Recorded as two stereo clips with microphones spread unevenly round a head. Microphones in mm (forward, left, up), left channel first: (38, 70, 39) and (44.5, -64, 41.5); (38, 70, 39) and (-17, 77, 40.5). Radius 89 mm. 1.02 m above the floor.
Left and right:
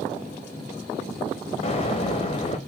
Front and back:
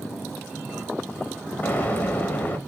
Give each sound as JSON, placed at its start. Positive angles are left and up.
{"t": 1.6, "sound": "an explosion", "azimuth_deg": 45, "distance_m": 0.7}